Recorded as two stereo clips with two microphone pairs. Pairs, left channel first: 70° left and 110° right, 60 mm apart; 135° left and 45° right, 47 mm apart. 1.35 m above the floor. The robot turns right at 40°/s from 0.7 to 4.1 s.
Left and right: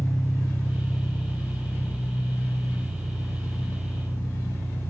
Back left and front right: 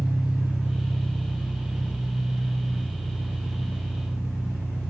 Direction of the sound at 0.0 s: 15° right.